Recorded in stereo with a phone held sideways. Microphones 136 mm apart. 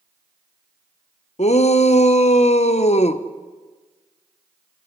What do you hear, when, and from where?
1.4 s a shout: 55° left (ahead or behind), 1.0 m